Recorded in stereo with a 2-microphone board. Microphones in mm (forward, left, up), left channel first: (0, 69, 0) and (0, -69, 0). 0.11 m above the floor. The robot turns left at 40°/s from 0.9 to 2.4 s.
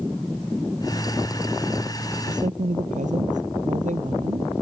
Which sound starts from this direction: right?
A woman speaking, at 2.3 s.